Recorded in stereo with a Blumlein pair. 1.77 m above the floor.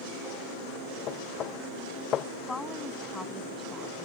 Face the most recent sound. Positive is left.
turn(degrees=10)